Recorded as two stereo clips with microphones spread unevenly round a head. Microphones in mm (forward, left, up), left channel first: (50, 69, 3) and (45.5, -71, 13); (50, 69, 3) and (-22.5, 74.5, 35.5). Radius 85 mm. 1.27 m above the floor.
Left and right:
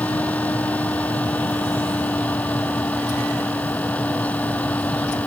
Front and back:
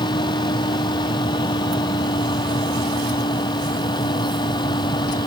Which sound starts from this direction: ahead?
A fan, at 0.0 s.